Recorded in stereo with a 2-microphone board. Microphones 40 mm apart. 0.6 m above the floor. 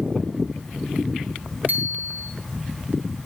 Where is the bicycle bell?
45° right (ahead or behind), 4 m.